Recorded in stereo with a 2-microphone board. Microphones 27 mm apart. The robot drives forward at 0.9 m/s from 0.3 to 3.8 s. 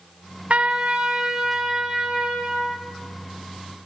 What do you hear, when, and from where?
0.5 s a trumpet: 50° right (ahead or behind), 0.7 m; by 2.9 s 10° right (ahead or behind), 2.5 m